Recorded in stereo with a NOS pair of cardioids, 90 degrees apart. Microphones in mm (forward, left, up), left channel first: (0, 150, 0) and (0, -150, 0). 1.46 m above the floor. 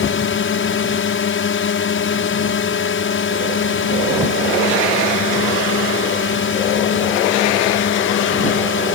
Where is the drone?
45° left.